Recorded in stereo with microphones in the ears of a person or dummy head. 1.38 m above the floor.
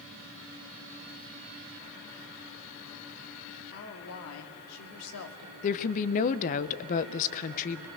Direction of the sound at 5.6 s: 40° left (ahead or behind).